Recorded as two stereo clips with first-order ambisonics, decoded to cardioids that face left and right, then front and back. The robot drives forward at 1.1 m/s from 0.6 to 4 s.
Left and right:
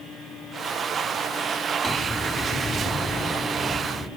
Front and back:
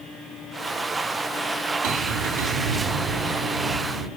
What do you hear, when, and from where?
1.8 s a bell: 170° left, 4.5 m; by 4.1 s 175° left, 7 m